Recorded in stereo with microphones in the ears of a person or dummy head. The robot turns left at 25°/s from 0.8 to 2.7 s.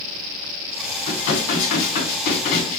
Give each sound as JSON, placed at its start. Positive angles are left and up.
{"t": 1.1, "sound": "dishes clattering", "azimuth_deg": 95, "distance_m": 1.8}